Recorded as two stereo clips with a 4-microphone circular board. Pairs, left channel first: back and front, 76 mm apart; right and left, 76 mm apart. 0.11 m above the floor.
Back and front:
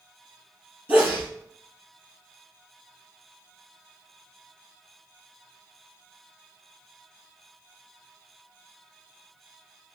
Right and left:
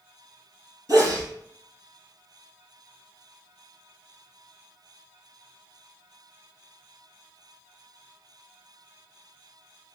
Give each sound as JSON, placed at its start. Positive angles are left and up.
{"t": 0.9, "sound": "a sneeze", "azimuth_deg": 60, "distance_m": 2.5}